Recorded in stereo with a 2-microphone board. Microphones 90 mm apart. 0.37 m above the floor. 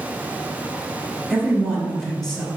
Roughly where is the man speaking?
Centre.